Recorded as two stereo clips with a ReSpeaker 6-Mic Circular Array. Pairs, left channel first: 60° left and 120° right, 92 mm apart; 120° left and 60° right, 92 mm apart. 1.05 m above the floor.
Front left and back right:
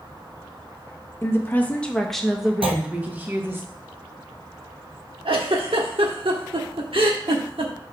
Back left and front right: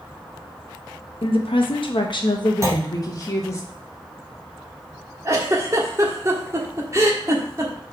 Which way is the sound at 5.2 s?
115° right.